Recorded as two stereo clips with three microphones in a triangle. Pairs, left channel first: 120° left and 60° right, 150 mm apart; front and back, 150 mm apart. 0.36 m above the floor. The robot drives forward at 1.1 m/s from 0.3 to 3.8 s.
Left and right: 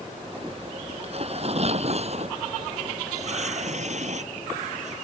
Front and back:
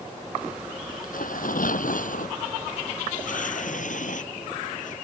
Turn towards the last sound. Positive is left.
turn(degrees=-25)